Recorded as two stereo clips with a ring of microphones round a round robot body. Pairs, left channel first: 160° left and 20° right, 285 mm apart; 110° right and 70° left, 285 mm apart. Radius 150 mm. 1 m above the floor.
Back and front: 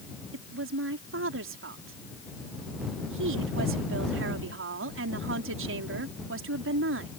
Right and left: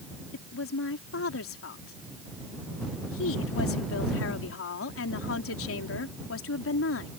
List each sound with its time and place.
0.3 s a woman speaking: 70° right